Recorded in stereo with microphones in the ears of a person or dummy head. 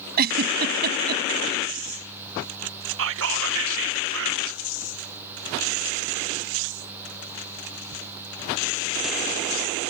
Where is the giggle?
50° right (ahead or behind).